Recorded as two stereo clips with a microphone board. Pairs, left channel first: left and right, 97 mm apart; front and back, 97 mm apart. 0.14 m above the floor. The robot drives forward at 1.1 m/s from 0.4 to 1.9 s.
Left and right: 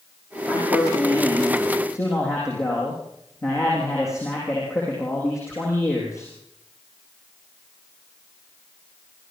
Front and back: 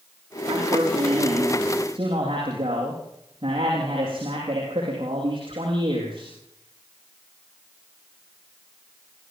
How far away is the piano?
No piano in this recording.